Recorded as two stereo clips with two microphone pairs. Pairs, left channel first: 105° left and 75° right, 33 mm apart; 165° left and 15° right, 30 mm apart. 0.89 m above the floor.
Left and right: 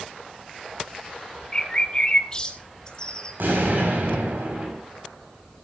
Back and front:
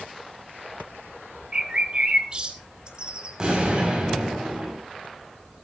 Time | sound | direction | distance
1.5 | a bird | 40° left | 1.7 m
3.4 | an explosion | 80° right | 7 m